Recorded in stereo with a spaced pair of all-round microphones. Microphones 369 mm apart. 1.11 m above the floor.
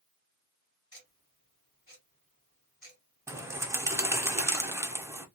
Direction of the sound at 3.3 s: 5° right (ahead or behind).